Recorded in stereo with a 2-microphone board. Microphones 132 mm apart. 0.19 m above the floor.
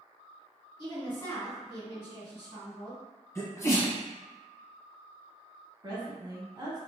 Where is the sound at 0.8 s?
35° left (ahead or behind), 1.8 m.